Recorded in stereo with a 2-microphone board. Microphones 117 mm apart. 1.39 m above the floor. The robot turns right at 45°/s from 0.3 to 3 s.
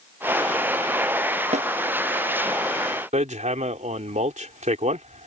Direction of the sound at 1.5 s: 70° right (ahead or behind).